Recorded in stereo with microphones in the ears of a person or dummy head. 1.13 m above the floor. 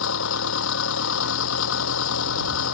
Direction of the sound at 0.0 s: 80° left.